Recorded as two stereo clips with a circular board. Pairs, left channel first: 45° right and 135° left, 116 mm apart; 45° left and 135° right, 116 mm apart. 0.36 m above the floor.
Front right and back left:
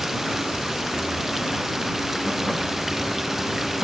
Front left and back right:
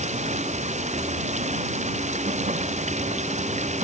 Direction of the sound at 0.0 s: 140° right.